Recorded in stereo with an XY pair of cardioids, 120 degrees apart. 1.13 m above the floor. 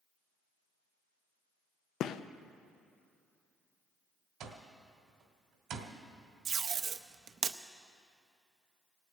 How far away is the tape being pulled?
About 0.7 m.